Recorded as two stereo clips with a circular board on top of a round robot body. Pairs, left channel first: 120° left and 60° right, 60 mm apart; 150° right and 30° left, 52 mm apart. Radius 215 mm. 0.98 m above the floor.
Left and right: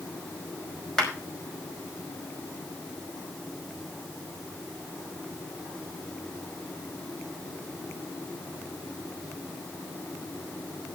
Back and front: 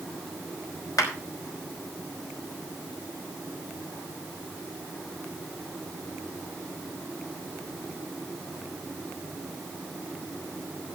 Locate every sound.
1.0 s a clap: 155° right, 5 m